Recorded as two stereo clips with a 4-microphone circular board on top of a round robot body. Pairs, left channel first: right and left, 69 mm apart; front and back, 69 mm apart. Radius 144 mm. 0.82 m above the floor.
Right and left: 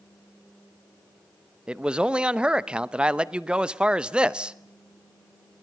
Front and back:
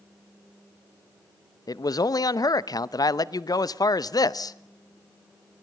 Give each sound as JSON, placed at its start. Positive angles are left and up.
{"t": 1.7, "sound": "a man speaking", "azimuth_deg": 15, "distance_m": 1.0}